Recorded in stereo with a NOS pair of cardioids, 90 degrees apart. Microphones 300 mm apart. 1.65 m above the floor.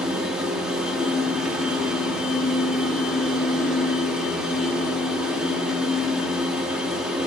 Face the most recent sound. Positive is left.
turn(degrees=-5)